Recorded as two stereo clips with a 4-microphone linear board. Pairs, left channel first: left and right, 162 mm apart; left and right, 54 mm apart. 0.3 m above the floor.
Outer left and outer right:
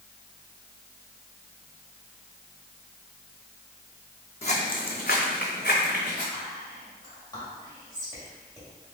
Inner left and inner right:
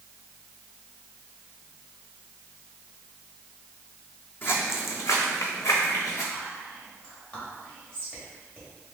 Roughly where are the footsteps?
Left.